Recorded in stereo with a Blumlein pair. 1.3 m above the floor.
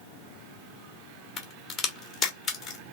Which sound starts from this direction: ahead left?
A crack, at 1.4 s.